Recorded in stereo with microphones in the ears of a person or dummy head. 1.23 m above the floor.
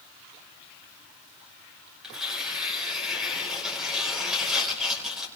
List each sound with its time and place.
2.0 s tearing paper: centre (ahead or behind), 5.5 m